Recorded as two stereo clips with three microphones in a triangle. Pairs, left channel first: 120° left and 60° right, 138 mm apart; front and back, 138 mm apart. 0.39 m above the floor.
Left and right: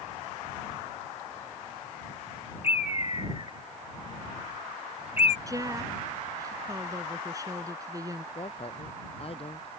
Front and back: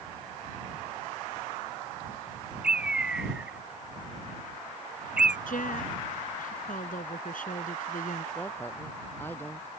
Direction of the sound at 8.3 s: 75° left.